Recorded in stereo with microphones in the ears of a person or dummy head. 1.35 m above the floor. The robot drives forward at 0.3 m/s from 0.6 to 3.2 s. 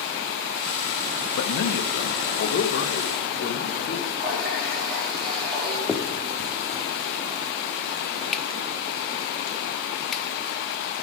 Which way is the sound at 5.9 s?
Centre (ahead or behind).